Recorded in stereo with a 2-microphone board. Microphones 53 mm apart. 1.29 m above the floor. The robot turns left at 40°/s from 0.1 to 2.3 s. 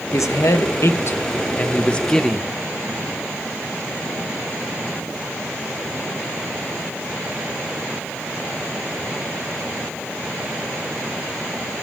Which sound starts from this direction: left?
A man speaking, at 0.1 s.